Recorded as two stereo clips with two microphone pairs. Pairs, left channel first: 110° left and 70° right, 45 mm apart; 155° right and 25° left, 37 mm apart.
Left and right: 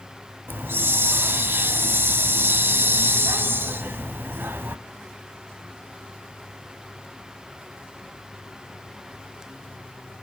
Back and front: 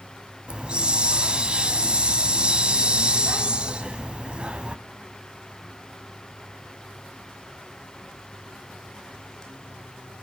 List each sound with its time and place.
0.5 s a hiss: 40° right, 1.2 m